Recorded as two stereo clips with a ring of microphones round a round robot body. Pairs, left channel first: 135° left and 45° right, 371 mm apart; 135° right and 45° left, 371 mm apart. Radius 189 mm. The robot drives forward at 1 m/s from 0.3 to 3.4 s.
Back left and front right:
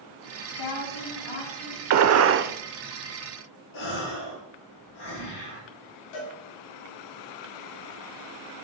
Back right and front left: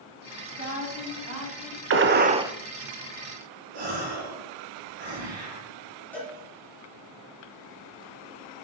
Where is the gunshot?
5° right, 0.9 m; by 2.5 s 35° right, 0.5 m.